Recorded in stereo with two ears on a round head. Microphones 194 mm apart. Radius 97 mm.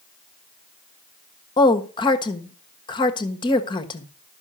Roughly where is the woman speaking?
Left.